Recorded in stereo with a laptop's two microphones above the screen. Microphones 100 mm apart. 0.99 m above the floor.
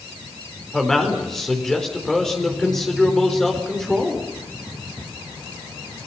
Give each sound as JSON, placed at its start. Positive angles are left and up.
{"t": 0.7, "sound": "a man speaking", "side_deg": 5, "distance_m": 4.0}